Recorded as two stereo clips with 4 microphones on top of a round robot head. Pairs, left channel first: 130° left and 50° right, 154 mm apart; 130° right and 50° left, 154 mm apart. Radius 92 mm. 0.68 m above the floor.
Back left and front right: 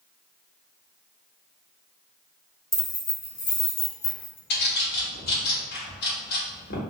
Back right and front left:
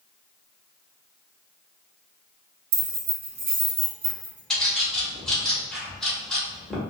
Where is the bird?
145° left, 1.2 m.